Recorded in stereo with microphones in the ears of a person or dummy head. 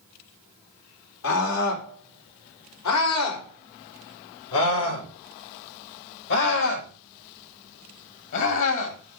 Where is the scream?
85° left, 3.5 m; by 8.9 s 70° left (ahead or behind), 7 m.